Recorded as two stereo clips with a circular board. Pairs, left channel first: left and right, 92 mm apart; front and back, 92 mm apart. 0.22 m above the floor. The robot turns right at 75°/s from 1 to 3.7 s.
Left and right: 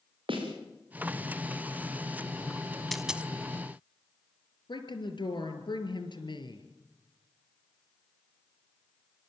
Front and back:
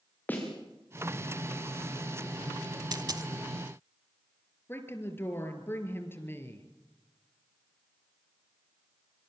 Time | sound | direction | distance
0.3 | a snare drum | 70° right | 6.5 m
2.9 | a dropped coin | 175° left | 0.7 m
4.7 | a woman speaking | 65° left | 4 m